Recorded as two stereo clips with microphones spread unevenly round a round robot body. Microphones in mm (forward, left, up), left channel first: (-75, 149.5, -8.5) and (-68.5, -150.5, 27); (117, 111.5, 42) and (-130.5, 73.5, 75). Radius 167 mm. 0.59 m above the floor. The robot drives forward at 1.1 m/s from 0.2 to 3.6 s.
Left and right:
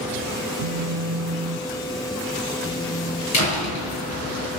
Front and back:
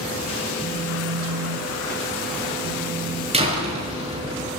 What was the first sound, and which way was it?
A phone buzzing, 80° right.